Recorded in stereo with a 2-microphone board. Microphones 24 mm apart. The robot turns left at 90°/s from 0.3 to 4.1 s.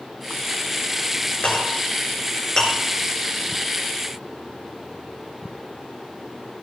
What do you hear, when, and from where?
1.4 s a clink: 50° left (ahead or behind), 6 m; by 2.7 s 10° left (ahead or behind), 6 m